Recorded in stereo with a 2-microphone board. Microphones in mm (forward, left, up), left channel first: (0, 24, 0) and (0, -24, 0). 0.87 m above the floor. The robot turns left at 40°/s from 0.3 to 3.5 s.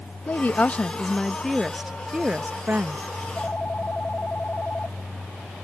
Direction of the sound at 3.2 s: 15° left (ahead or behind).